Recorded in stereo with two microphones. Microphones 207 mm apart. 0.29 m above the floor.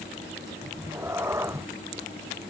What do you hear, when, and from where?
0.6 s a cat meowing: 15° right (ahead or behind)